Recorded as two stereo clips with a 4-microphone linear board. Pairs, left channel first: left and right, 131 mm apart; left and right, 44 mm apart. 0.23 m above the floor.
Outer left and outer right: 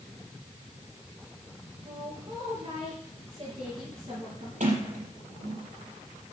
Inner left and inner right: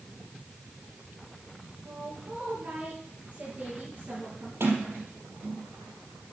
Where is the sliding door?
75° right (ahead or behind), 5 m.